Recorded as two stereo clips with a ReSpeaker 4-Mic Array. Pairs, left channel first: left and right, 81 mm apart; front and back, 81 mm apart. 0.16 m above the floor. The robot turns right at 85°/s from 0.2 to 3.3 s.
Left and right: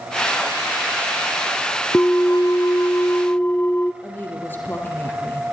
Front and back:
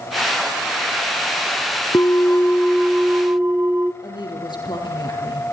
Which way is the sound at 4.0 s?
25° left.